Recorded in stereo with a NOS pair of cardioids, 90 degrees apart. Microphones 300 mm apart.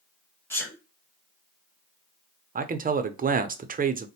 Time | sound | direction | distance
0.5 | a sneeze | 5° left | 1.5 m
2.5 | a man speaking | 30° right | 0.6 m